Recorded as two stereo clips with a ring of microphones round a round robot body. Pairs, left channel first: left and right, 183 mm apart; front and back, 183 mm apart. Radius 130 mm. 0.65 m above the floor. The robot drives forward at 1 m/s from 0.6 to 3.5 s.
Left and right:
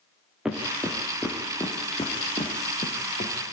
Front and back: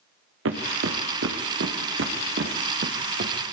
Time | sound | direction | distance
0.5 | footsteps | straight behind | 4 m